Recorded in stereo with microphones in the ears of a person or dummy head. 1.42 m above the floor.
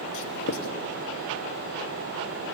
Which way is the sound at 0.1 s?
65° left (ahead or behind).